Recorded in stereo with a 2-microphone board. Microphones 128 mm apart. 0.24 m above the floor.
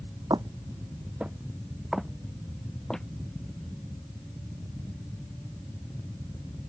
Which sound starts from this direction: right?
Footsteps, at 0.3 s.